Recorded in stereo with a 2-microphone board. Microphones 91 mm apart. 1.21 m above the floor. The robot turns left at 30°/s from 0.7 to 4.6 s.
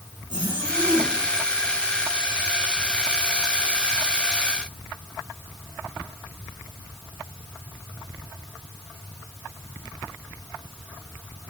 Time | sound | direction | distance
0.3 | a zipper | 80° right | 8 m